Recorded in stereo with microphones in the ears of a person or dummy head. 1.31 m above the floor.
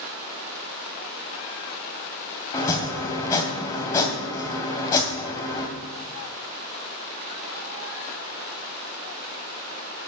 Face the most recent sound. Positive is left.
turn(degrees=15)  # may be behind; listen again after turning